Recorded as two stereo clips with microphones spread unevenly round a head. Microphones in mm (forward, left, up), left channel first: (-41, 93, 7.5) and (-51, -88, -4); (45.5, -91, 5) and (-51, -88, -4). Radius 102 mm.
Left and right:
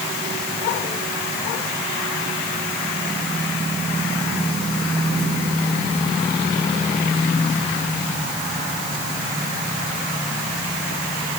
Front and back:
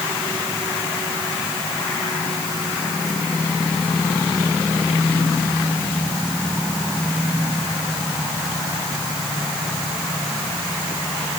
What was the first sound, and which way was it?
Only background noise.